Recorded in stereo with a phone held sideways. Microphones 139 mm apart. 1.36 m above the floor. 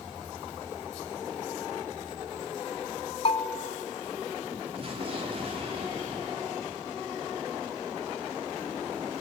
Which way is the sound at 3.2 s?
45° left (ahead or behind).